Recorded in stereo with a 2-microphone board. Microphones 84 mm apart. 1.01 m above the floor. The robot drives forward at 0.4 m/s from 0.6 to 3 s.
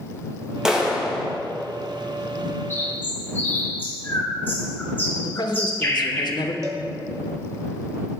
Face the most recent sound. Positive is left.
turn(degrees=-40)  # may be behind; listen again after turning